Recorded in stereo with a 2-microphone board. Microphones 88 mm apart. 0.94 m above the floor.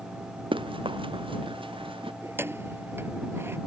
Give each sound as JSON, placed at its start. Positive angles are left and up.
{"t": 0.5, "sound": "running footsteps", "side_deg": -65}
{"t": 2.2, "sound": "keys jangling", "side_deg": -25}